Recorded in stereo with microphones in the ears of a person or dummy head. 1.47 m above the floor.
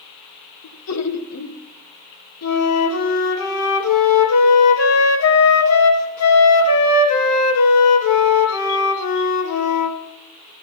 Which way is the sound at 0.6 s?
85° left.